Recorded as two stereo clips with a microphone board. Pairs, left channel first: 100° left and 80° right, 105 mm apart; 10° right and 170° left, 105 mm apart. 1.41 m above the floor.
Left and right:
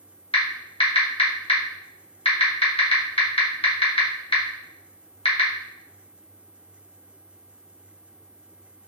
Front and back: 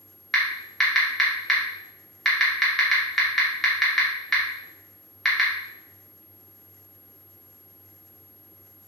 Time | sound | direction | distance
0.3 | typing on a keyboard | 75° left | 0.8 m